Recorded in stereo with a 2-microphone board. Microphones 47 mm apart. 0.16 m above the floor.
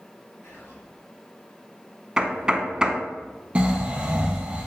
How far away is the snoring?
About 1.6 m.